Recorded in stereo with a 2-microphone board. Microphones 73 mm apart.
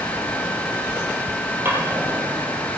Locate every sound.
1.6 s a drawer: 30° right (ahead or behind), 3.5 m